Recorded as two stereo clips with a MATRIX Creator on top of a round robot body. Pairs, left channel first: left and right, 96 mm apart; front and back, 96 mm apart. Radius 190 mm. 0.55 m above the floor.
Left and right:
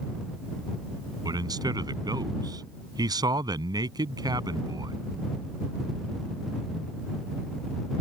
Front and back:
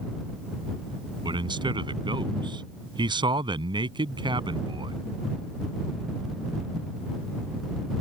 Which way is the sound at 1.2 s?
140° right.